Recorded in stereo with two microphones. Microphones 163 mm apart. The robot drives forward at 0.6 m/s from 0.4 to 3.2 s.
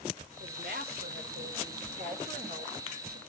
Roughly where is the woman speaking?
Right.